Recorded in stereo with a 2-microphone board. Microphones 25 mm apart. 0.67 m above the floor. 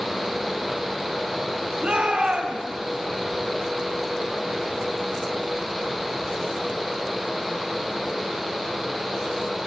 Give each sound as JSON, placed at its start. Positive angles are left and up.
{"t": 1.8, "sound": "a shout", "side_deg": -60, "distance_m": 5.5}